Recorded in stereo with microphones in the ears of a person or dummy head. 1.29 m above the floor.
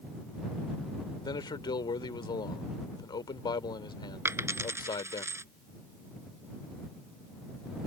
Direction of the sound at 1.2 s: 25° left (ahead or behind).